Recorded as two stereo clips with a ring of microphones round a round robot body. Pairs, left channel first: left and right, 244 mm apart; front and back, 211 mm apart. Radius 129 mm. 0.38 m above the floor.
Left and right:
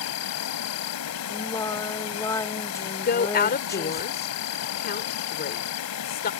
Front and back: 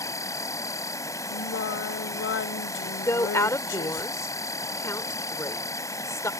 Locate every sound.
0.0 s an insect: 75° left
1.3 s singing: 15° left
3.0 s a woman speaking: 70° left